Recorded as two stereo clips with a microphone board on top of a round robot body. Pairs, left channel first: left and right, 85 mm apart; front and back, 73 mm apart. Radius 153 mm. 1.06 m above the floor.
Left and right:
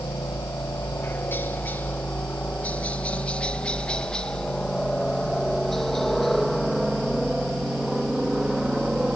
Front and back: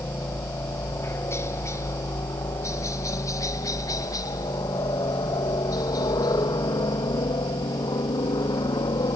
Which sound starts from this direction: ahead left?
A helicopter, at 0.0 s.